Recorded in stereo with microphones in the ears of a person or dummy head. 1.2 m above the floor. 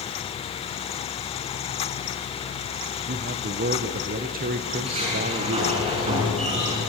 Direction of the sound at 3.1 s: 40° right (ahead or behind).